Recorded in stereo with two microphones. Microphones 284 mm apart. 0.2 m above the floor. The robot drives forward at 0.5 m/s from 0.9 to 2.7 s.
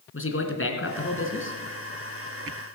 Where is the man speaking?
50° left (ahead or behind), 2.5 m; by 1.6 s 45° left (ahead or behind), 2.5 m.